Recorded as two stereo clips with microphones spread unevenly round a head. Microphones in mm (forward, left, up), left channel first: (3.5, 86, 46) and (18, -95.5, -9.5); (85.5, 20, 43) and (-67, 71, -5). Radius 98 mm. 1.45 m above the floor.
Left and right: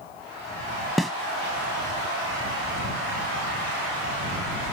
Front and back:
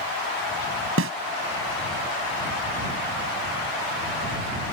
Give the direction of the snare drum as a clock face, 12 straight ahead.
6 o'clock.